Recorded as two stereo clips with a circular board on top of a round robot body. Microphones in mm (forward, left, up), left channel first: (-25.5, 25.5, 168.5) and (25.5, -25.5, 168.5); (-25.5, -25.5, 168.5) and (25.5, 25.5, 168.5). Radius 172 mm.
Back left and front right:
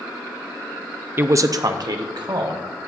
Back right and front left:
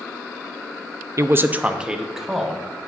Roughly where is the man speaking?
Ahead.